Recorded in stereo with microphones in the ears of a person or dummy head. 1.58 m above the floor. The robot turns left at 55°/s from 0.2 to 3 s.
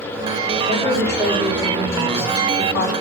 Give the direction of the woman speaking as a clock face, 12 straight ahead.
5 o'clock.